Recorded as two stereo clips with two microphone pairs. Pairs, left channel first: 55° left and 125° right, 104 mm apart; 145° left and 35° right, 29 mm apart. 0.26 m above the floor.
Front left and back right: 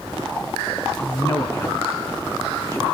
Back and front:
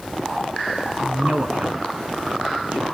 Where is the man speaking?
10° right, 3 m.